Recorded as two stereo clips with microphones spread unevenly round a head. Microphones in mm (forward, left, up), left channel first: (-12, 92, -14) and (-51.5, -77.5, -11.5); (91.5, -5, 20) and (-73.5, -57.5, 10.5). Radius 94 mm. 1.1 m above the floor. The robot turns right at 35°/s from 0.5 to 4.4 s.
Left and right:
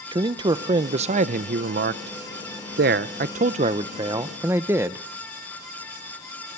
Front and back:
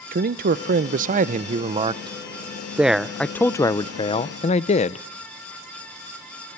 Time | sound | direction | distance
0.1 | a man speaking | 165° right | 0.6 m